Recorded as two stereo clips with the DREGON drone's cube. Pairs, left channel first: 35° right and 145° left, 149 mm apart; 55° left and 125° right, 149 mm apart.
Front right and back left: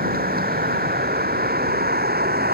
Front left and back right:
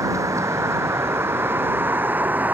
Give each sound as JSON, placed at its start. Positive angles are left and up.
{"t": 0.0, "sound": "a vehicle", "azimuth_deg": 165}